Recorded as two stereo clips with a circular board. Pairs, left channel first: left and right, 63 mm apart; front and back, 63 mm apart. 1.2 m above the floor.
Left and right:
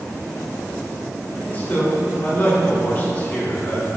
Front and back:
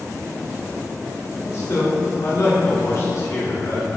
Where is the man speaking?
30° left, 2.5 m.